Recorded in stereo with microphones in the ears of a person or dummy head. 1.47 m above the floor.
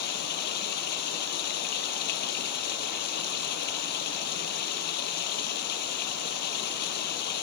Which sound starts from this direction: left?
Running water, at 0.0 s.